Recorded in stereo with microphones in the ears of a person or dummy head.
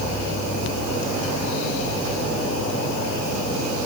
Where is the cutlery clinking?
No cutlery clinking in this recording.